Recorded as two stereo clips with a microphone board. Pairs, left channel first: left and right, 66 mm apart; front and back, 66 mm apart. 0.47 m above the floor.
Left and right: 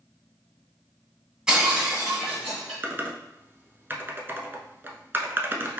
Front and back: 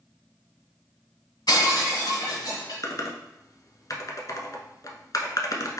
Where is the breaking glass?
10° right, 2 m.